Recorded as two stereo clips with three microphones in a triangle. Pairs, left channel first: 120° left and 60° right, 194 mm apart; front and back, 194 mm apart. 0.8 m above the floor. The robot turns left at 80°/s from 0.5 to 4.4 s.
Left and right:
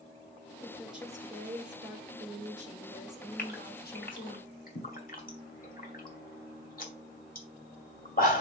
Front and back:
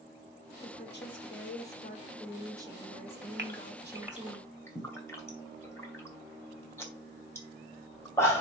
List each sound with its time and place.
0.6 s a woman speaking: 55° left, 3.5 m; by 4.4 s 110° left, 3.5 m
3.4 s a gasp: 155° left, 2 m; by 8.4 s 75° left, 2 m